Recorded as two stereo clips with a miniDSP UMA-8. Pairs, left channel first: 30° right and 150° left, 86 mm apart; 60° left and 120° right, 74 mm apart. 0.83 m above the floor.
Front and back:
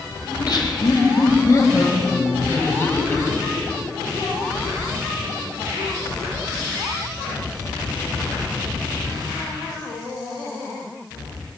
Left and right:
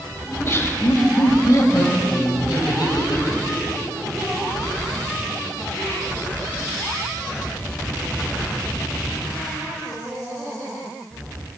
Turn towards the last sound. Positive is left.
turn(degrees=45)